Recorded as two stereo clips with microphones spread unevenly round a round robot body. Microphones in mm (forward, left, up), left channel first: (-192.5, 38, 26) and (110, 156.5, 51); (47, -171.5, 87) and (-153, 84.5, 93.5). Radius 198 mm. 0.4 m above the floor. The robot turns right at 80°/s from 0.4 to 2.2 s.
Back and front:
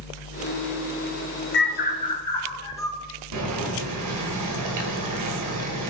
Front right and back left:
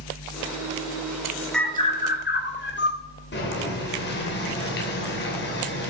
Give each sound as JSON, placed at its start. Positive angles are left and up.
{"t": 1.5, "sound": "a bird", "azimuth_deg": -140, "distance_m": 1.8}
{"t": 3.3, "sound": "boiling", "azimuth_deg": 0, "distance_m": 2.5}